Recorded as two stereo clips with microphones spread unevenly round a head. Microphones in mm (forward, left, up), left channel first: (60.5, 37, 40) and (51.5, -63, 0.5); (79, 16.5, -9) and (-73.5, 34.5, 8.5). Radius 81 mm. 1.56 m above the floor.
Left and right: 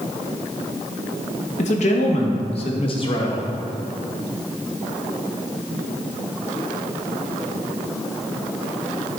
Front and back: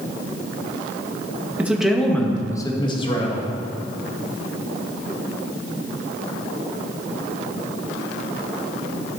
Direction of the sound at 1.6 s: 95° left.